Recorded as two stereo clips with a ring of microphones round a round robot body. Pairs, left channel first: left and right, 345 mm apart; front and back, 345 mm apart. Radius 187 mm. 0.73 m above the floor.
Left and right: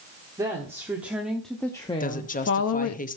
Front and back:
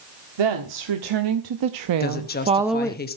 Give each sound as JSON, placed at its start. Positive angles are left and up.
{"t": 0.4, "sound": "a woman speaking", "azimuth_deg": -170, "distance_m": 1.5}
{"t": 2.0, "sound": "a woman speaking", "azimuth_deg": 40, "distance_m": 1.0}